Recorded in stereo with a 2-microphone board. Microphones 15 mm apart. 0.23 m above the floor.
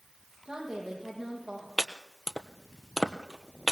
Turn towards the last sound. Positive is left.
turn(degrees=20)  # may be behind; listen again after turning